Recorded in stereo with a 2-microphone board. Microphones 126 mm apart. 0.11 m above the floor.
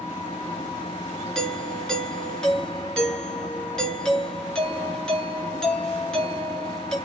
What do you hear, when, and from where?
0.0 s an engine running: 40° left (ahead or behind), 3 m
1.4 s a doorbell: 5° left (ahead or behind), 2 m